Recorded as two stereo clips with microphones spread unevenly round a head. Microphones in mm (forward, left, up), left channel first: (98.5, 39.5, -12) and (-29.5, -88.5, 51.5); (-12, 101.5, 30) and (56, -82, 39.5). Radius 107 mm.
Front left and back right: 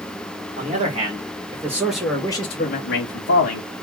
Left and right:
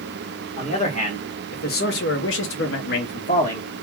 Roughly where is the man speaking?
Behind.